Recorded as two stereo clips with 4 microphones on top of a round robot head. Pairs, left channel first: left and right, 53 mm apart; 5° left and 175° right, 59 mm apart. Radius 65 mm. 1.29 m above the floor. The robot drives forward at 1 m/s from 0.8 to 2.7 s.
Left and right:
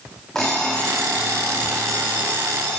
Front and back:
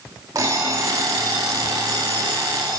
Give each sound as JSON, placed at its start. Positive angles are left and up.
{"t": 0.3, "sound": "an alarm clock", "azimuth_deg": 175, "distance_m": 0.9}